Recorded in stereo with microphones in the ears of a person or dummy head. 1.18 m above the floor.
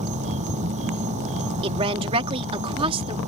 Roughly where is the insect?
Right.